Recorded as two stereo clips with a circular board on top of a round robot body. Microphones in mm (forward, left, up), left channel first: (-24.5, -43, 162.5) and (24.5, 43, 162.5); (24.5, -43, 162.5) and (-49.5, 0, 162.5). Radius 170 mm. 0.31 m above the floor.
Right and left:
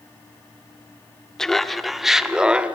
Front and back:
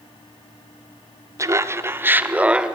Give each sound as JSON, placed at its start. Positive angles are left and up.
{"t": 1.4, "sound": "laughter", "azimuth_deg": 160, "distance_m": 1.5}